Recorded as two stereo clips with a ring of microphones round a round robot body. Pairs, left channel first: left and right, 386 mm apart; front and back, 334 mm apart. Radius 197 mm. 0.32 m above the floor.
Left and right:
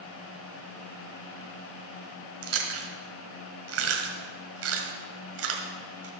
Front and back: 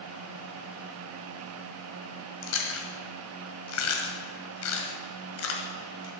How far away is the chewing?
About 1.7 m.